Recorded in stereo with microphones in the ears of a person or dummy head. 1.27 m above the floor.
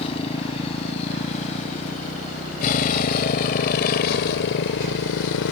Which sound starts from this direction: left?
A motorcycle, at 0.0 s.